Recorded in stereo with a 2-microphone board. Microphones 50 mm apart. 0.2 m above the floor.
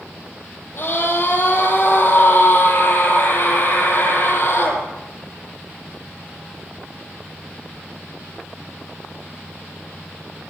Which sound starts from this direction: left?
A scream, at 0.8 s.